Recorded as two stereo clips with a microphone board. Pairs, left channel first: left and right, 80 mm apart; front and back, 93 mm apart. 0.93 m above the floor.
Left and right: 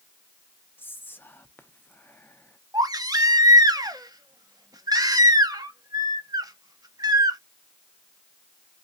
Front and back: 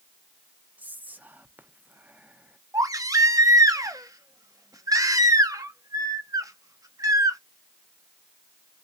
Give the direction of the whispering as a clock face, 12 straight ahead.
8 o'clock.